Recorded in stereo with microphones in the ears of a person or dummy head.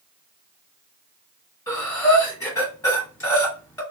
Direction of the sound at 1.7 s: 15° left (ahead or behind).